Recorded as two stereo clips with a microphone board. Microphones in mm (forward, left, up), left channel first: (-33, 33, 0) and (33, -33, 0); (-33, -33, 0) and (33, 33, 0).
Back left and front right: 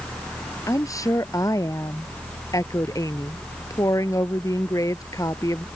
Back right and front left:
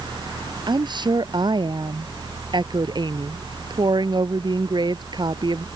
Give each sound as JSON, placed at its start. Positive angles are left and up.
{"t": 0.7, "sound": "a woman speaking", "azimuth_deg": 80}